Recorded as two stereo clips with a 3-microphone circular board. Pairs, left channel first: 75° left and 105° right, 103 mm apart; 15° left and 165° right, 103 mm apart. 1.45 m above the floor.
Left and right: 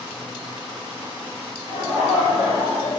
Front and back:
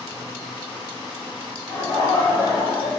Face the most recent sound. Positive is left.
turn(degrees=70)